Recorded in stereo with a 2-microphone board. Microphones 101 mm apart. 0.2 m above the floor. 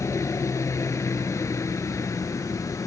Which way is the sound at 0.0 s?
30° left (ahead or behind).